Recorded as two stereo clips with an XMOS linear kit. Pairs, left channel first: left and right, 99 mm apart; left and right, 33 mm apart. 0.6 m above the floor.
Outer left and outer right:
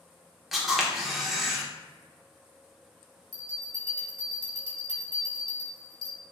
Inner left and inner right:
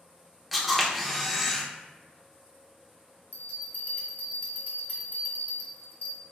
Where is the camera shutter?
Centre (ahead or behind), 0.9 m.